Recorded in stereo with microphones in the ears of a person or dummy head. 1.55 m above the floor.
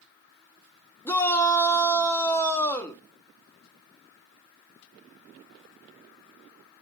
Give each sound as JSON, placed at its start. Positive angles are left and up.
{"t": 1.1, "sound": "a shout", "side_deg": 10, "distance_m": 0.5}